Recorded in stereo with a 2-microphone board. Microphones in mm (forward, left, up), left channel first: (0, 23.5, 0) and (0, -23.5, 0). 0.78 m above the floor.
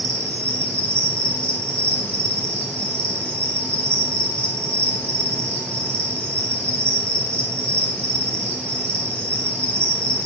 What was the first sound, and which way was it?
An insect, 30° left (ahead or behind).